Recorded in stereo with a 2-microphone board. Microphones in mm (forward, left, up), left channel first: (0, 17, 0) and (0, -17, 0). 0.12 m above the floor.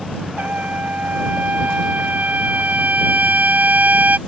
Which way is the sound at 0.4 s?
55° right (ahead or behind).